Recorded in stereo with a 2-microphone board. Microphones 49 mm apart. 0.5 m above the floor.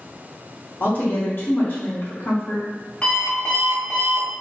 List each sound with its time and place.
0.8 s a woman speaking: 50° left (ahead or behind), 1.0 m
3.0 s an alarm clock: 25° left (ahead or behind), 1.3 m